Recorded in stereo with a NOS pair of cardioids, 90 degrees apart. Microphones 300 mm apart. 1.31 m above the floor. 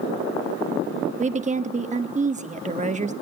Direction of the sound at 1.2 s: 25° right.